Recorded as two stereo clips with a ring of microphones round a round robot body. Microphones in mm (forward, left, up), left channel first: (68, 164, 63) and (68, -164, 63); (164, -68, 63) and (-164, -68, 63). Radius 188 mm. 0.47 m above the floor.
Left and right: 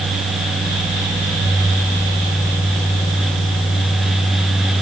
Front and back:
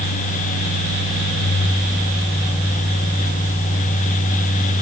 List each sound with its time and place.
Only background noise.